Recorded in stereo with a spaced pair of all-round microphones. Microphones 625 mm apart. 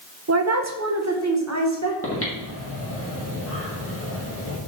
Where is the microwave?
No microwave in this recording.